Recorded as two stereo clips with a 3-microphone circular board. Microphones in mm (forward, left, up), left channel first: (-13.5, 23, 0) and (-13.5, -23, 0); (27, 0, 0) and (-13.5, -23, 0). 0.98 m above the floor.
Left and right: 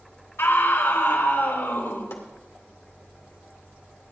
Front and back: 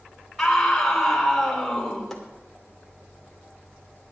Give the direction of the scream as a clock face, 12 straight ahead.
8 o'clock.